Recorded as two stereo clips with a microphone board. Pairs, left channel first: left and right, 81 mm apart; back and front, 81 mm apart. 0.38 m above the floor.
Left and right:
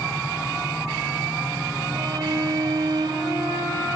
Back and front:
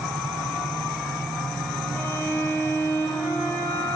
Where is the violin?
115° right, 6 m.